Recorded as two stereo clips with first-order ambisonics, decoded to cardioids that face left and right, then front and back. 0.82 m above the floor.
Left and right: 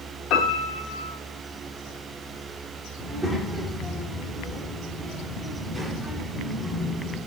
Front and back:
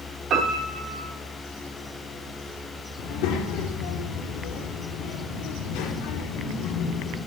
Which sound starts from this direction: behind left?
A piano, at 0.3 s.